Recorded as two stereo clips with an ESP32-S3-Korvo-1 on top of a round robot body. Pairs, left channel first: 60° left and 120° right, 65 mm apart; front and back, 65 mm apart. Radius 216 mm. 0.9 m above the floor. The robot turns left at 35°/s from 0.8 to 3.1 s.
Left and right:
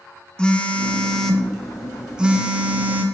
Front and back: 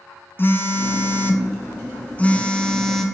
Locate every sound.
0.4 s a phone buzzing: 5° right, 1.0 m; by 3.0 s 80° right, 1.0 m